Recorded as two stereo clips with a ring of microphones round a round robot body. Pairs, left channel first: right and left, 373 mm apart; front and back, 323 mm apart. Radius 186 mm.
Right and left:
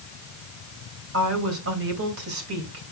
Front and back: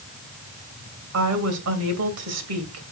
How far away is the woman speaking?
About 2.5 m.